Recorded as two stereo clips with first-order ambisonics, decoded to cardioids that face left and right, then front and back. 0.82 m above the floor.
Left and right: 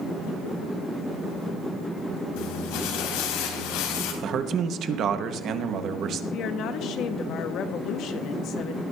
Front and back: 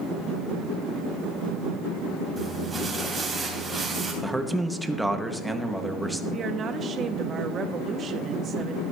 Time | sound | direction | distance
2.4 | crumpling | 100° left | 3.5 m
4.2 | a man speaking | 95° right | 0.9 m
6.3 | a woman speaking | 125° left | 1.0 m